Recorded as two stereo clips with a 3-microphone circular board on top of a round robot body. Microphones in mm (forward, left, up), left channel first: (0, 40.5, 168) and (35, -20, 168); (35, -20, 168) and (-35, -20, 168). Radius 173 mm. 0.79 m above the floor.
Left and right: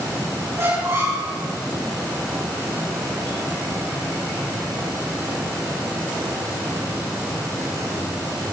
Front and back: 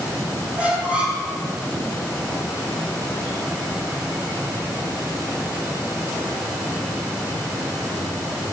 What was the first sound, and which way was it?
A squeak, 110° right.